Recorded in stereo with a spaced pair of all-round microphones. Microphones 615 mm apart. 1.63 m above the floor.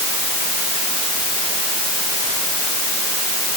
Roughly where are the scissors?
I don't hear scissors.